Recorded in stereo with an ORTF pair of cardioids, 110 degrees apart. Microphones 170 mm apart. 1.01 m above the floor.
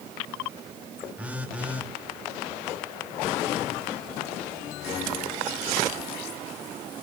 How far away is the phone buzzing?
About 1.3 m.